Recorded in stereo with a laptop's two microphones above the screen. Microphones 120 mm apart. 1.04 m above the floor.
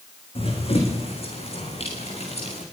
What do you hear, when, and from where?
0.3 s running footsteps: 55° left (ahead or behind), 4 m; by 2.6 s 65° left (ahead or behind), 5 m